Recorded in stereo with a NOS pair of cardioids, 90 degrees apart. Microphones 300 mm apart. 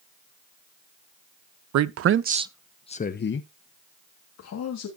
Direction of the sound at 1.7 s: 65° right.